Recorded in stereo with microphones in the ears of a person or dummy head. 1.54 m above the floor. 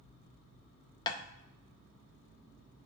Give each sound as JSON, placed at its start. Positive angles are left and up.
{"t": 1.1, "sound": "tapping", "side_deg": 25, "distance_m": 0.5}